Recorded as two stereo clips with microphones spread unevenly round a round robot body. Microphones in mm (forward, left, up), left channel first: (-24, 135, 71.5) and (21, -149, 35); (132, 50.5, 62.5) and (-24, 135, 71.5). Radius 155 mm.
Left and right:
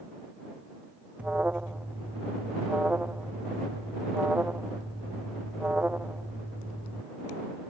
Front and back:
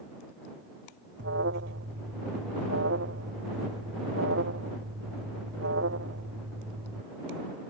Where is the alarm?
165° right.